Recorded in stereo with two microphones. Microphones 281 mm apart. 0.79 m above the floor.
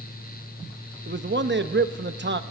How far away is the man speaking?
About 0.8 m.